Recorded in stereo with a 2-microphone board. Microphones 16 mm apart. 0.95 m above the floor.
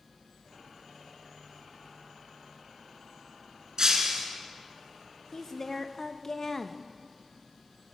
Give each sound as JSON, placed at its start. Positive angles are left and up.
{"t": 3.8, "sound": "breaking glass", "side_deg": -45, "distance_m": 2.5}
{"t": 5.3, "sound": "a woman speaking", "side_deg": 30, "distance_m": 0.9}